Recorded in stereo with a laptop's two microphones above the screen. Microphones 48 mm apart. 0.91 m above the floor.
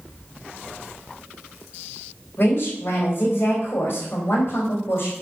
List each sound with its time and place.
2.4 s a woman speaking: 50° left (ahead or behind), 3.5 m